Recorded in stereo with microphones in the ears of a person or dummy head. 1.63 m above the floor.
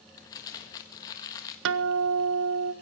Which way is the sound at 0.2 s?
20° left (ahead or behind).